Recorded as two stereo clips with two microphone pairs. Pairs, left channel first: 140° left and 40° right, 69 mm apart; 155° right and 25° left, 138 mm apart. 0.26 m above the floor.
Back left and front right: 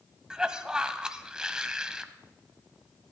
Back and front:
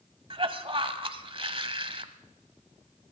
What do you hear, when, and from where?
0.3 s a cough: 30° left, 1.2 m